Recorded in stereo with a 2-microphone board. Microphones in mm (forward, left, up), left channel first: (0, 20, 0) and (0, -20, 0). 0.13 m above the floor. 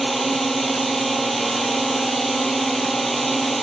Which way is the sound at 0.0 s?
Centre (ahead or behind).